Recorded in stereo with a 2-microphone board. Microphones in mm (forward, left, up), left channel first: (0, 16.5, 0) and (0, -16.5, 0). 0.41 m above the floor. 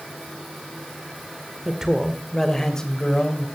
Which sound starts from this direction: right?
A man speaking, at 1.6 s.